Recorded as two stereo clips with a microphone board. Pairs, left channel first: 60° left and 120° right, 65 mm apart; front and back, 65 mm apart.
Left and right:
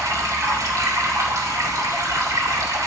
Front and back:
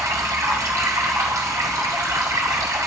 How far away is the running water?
About 2 m.